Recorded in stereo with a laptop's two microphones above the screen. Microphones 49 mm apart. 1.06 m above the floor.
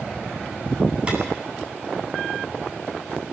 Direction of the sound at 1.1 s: 20° right (ahead or behind).